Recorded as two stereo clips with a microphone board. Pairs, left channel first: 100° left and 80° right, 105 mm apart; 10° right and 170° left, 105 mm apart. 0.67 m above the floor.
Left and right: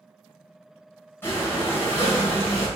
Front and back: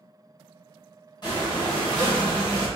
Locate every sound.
1.2 s breathing: 30° left, 2.5 m